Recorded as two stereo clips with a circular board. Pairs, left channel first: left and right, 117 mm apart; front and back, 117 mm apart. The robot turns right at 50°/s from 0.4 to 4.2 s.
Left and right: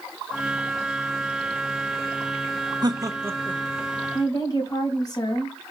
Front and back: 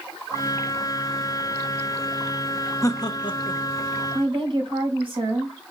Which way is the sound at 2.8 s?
50° right.